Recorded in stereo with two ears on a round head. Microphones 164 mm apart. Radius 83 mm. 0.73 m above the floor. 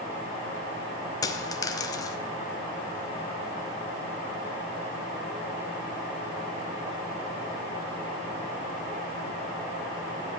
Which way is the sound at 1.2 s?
20° left (ahead or behind).